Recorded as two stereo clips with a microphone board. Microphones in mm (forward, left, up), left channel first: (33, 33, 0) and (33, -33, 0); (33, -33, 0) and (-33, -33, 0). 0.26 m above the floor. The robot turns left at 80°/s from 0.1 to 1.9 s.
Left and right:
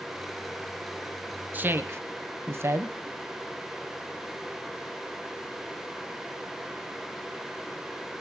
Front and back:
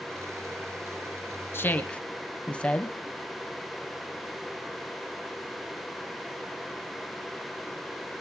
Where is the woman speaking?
35° right, 1.5 m; by 3.0 s 65° right, 1.5 m.